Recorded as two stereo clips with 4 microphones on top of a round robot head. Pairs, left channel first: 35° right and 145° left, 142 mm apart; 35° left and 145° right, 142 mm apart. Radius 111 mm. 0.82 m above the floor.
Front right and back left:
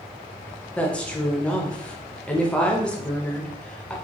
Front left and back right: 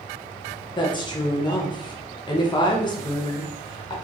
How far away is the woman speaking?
About 0.8 m.